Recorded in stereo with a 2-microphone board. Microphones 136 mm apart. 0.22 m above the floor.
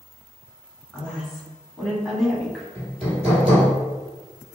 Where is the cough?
I don't hear a cough.